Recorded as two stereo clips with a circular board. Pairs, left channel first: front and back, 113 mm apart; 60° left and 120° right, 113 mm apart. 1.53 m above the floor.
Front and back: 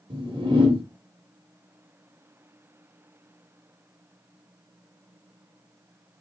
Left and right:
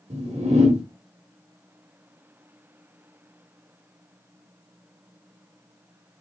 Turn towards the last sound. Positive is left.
turn(degrees=-140)